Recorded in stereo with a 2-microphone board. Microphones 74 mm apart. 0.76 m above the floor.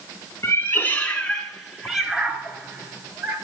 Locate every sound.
0.4 s a cat meowing: 35° left (ahead or behind), 1.4 m; by 3.4 s 25° right (ahead or behind), 2.5 m